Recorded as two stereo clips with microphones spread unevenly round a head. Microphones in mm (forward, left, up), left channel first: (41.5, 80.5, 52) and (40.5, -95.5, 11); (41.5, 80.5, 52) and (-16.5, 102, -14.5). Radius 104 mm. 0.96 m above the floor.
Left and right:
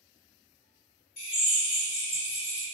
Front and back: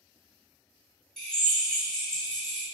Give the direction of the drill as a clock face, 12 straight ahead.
10 o'clock.